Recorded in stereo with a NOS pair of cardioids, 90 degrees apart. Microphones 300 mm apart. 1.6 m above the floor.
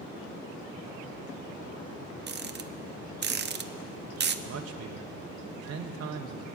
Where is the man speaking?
50° right, 1.1 m.